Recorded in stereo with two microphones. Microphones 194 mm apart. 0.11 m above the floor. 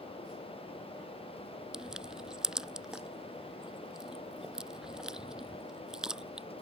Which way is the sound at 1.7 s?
5° right (ahead or behind).